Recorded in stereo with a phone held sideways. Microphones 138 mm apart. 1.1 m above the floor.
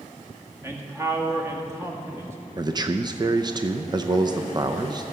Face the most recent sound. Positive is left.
turn(degrees=-30)  # may be behind; listen again after turning